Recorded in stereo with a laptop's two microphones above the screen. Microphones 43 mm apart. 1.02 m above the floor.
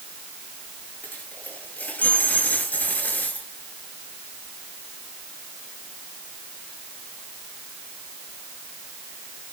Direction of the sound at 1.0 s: 45° left (ahead or behind).